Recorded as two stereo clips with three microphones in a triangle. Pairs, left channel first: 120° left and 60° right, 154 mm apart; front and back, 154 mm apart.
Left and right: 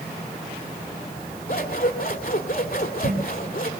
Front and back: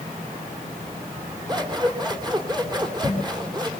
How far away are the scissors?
About 3 m.